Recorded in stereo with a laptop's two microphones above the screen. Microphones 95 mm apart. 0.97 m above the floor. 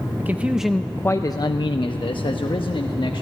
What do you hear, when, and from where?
0.2 s a man speaking: 25° right (ahead or behind), 0.8 m; by 3.2 s 65° left (ahead or behind), 1.7 m